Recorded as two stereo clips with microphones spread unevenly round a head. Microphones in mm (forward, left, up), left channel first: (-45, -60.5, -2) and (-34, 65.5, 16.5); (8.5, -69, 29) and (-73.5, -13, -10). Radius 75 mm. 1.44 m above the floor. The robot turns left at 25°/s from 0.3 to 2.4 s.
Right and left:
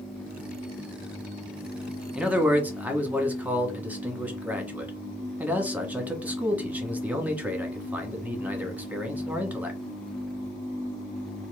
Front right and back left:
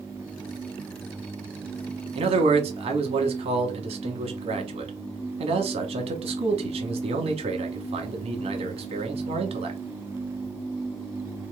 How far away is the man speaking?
About 1.4 m.